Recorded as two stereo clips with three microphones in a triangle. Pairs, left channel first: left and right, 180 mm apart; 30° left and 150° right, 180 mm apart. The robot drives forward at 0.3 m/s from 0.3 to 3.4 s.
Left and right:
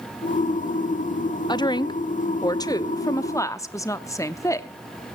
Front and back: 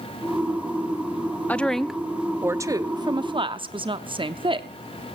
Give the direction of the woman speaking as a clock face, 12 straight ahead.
9 o'clock.